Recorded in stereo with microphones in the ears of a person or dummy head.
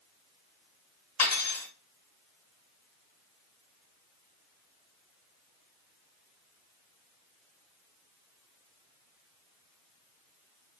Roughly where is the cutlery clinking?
Left.